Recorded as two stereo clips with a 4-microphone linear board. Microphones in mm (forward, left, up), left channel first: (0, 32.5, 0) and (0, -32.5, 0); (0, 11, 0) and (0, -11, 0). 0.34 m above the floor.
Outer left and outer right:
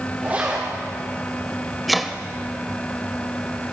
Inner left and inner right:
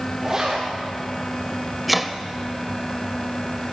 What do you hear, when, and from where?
0.2 s a zipper: 30° right (ahead or behind), 6.5 m
1.9 s chopping: centre (ahead or behind), 1.1 m